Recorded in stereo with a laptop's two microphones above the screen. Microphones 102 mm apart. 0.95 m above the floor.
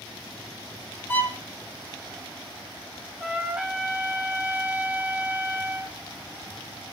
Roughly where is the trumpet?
Centre.